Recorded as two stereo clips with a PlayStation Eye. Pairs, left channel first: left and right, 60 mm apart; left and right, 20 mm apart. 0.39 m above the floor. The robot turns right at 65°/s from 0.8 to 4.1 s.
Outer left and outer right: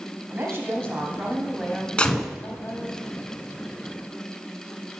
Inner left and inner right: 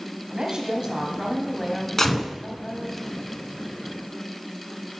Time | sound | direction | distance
0.3 | a woman speaking | 55° right | 2.5 m
2.0 | a gunshot | 20° left (ahead or behind) | 1.1 m